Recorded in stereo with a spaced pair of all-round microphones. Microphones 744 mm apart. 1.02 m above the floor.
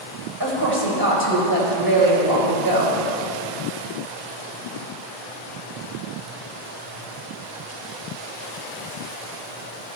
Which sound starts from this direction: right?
A woman speaking, at 0.4 s.